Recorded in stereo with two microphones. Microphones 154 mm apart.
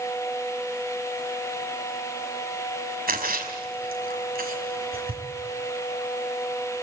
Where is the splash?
75° right (ahead or behind), 5 m.